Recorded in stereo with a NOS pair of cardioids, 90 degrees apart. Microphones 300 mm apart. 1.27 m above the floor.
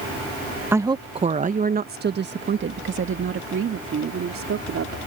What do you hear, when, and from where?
0.7 s a woman speaking: 10° right; by 5.0 s 50° right